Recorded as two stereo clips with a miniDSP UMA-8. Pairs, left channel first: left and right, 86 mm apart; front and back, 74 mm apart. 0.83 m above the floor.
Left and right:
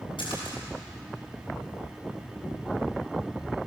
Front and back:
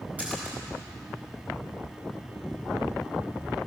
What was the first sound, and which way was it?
A splash, 110° left.